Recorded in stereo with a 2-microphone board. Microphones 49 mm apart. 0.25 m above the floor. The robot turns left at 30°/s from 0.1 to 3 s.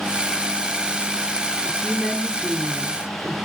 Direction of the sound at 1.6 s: 20° left.